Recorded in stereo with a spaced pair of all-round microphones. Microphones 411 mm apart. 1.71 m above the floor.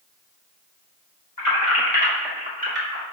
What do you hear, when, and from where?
1.4 s keys jangling: 50° left (ahead or behind), 1.4 m; by 3.0 s 40° right (ahead or behind), 1.4 m